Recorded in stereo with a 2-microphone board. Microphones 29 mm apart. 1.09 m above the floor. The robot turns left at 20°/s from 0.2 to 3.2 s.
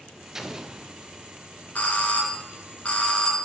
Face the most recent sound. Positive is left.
turn(degrees=35)  # may be behind; listen again after turning